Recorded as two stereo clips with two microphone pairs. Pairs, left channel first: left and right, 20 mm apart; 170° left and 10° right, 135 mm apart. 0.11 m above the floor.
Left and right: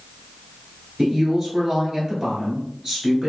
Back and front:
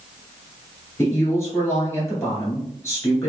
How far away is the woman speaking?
About 1.4 m.